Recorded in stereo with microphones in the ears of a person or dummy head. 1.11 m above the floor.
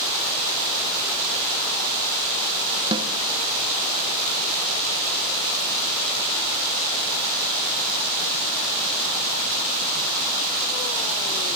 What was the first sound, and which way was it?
A snare drum, 30° right (ahead or behind).